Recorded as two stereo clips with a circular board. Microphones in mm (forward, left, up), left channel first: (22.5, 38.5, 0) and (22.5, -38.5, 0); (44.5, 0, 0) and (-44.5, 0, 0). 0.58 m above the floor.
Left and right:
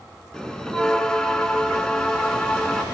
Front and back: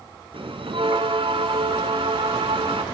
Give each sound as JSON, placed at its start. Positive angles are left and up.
{"t": 0.3, "sound": "a bell", "azimuth_deg": 170, "distance_m": 2.0}